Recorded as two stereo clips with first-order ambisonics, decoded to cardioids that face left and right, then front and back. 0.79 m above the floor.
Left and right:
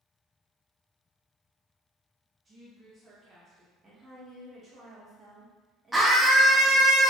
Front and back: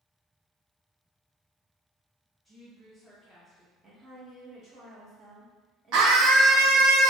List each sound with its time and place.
2.5 s a woman speaking: 95° right, 0.9 m
3.8 s a woman speaking: 140° right, 0.7 m
5.9 s a scream: 175° right, 0.6 m